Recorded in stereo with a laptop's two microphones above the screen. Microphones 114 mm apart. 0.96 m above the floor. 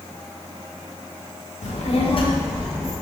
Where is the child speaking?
75° left (ahead or behind), 0.9 m; by 2.9 s 15° right (ahead or behind), 0.7 m.